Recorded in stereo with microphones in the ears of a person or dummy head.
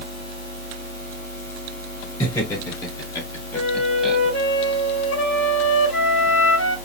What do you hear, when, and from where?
2.2 s laughter: 20° left (ahead or behind), 3 m; by 4.2 s 5° right (ahead or behind), 1.1 m
3.5 s a flute: 70° left (ahead or behind), 3.5 m